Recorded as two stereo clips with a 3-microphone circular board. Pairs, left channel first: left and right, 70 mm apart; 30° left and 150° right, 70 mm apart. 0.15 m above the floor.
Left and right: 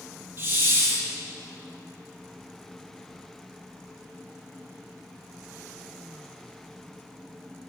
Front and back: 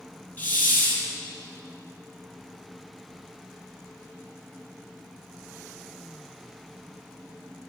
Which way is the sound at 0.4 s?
35° right.